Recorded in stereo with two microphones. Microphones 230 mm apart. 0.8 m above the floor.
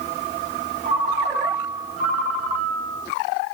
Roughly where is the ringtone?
Right.